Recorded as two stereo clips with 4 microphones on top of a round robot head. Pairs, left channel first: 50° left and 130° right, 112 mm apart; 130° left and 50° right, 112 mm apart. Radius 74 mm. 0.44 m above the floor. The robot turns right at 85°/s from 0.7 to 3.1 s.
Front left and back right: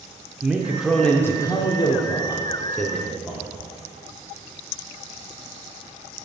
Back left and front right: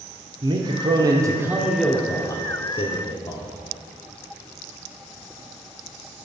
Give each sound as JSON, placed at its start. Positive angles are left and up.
{"t": 0.4, "sound": "a man speaking", "azimuth_deg": -55, "distance_m": 0.9}